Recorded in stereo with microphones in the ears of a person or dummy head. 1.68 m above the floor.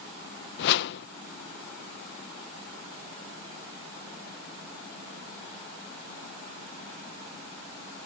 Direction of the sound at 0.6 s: 65° left (ahead or behind).